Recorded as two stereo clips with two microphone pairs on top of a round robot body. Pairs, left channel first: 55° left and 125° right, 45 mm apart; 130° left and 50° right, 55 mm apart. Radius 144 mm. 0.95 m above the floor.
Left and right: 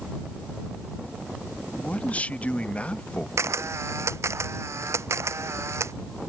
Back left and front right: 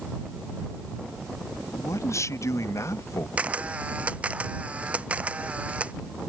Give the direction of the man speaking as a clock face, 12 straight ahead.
8 o'clock.